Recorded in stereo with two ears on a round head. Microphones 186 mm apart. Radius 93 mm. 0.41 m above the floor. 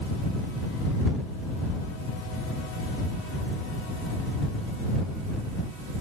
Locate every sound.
Only background noise.